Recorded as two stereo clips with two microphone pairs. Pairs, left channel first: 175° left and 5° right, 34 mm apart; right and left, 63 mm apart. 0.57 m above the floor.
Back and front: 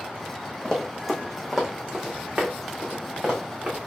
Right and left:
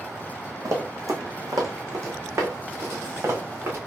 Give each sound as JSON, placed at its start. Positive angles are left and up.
{"t": 0.7, "sound": "running footsteps", "azimuth_deg": 105, "distance_m": 1.1}